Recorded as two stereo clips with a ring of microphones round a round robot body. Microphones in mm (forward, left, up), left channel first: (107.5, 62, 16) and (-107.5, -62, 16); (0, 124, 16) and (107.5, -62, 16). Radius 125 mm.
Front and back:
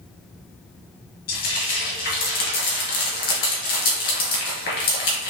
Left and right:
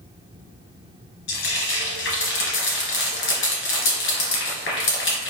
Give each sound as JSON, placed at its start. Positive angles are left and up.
{"t": 1.3, "sound": "frying", "azimuth_deg": 85, "distance_m": 1.5}